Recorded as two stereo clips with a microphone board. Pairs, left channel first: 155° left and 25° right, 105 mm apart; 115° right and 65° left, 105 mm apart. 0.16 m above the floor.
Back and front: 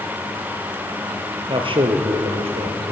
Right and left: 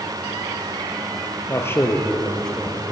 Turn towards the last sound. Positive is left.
turn(degrees=-20)